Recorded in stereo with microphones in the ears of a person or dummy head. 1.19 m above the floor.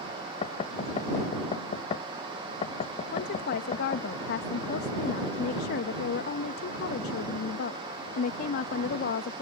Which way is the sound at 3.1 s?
60° left (ahead or behind).